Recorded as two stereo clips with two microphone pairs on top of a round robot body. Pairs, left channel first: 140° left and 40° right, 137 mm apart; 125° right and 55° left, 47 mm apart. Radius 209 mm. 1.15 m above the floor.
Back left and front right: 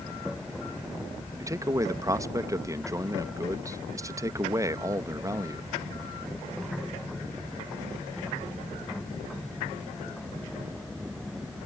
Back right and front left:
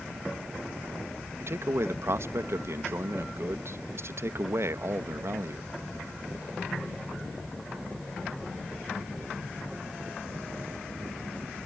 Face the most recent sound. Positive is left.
turn(degrees=25)